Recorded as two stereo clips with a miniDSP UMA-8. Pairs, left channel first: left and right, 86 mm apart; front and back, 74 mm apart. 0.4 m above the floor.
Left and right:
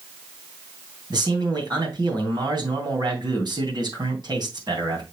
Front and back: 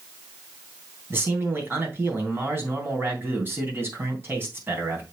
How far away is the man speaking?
About 3 m.